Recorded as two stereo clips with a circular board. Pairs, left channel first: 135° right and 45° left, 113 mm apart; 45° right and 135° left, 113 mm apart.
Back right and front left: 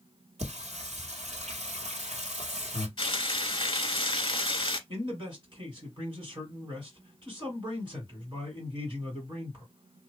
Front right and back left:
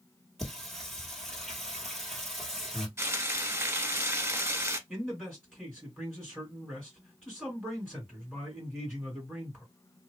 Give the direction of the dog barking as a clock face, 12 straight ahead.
I don't hear a dog barking.